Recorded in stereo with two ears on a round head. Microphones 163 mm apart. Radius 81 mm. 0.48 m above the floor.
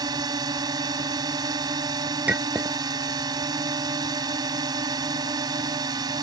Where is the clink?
10° right (ahead or behind).